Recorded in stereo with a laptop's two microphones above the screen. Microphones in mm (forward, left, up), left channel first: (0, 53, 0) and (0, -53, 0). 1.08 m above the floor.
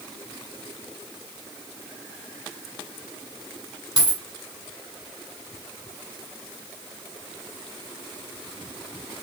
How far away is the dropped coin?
About 1.3 m.